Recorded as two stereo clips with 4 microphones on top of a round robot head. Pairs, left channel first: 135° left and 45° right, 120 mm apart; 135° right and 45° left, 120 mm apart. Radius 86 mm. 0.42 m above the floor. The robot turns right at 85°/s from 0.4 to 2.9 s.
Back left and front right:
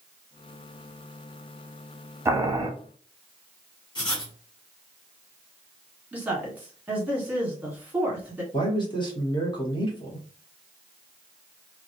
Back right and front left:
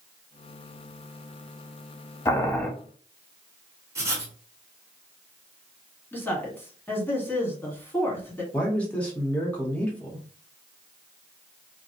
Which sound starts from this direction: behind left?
A man speaking, at 8.5 s.